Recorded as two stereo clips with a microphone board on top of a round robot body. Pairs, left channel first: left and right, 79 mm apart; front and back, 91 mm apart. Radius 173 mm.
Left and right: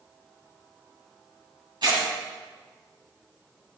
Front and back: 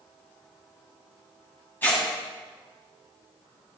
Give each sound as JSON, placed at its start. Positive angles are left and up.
{"t": 1.8, "sound": "tearing paper", "azimuth_deg": -70, "distance_m": 6.0}